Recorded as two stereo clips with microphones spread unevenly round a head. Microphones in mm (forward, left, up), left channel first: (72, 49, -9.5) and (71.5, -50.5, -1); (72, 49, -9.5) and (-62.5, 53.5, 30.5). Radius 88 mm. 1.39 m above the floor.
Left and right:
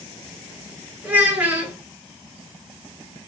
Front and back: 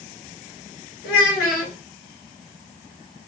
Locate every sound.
1.0 s a child speaking: 15° right, 2.5 m